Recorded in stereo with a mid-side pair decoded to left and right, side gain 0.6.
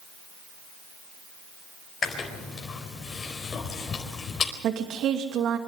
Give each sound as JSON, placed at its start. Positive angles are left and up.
{"t": 2.0, "sound": "chewing", "azimuth_deg": 35, "distance_m": 4.5}
{"t": 4.6, "sound": "a woman speaking", "azimuth_deg": -55, "distance_m": 2.5}